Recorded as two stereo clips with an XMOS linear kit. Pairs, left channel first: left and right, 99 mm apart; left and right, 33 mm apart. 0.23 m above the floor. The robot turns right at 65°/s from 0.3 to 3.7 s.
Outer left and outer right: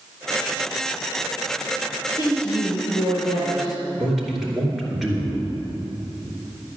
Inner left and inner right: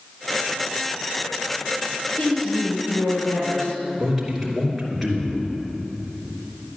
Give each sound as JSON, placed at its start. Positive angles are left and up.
{"t": 2.1, "sound": "a woman speaking", "azimuth_deg": 35, "distance_m": 5.0}
{"t": 4.0, "sound": "a man speaking", "side_deg": 0, "distance_m": 3.0}